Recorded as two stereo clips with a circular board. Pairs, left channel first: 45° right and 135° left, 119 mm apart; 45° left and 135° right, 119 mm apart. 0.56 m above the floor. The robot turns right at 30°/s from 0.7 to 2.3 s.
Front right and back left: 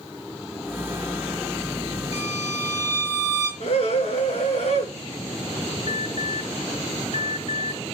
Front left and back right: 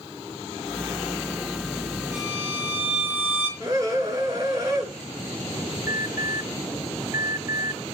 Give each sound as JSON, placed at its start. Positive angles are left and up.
{"t": 2.1, "sound": "a violin", "azimuth_deg": -65, "distance_m": 8.0}
{"t": 3.6, "sound": "a scream", "azimuth_deg": -70, "distance_m": 8.5}
{"t": 5.9, "sound": "an alarm", "azimuth_deg": -75, "distance_m": 2.5}